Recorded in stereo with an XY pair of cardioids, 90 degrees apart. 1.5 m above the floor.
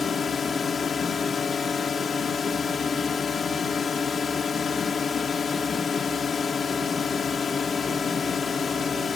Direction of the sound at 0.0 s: 50° left.